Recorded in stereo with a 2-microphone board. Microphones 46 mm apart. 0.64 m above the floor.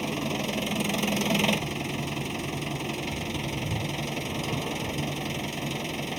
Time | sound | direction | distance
0.0 | an engine running | centre (ahead or behind) | ?